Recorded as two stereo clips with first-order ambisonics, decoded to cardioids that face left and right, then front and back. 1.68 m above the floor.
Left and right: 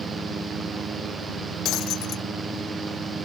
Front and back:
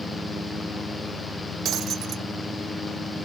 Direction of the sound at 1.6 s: 130° left.